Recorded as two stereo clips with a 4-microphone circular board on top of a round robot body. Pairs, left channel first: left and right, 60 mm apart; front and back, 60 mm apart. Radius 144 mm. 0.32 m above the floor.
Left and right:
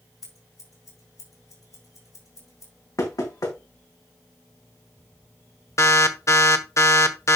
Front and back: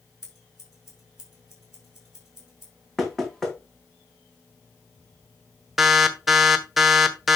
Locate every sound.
0.2 s scissors: 95° left, 6 m
3.0 s knocking: 80° left, 3 m
5.8 s an alarm: 90° left, 1.4 m